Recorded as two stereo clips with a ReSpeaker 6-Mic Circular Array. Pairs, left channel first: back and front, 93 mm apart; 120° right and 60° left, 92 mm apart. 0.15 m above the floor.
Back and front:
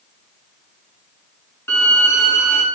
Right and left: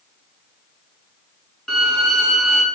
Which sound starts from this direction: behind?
A violin, at 1.7 s.